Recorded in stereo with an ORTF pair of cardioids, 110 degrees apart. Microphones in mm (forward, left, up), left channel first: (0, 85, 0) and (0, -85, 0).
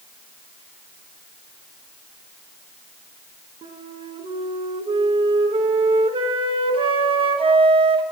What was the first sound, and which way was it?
A flute, 30° right.